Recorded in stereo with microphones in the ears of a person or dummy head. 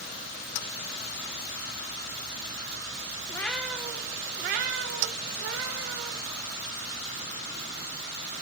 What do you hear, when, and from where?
3.3 s a cat meowing: 20° left (ahead or behind), 0.7 m; by 6.2 s 70° right (ahead or behind), 1.8 m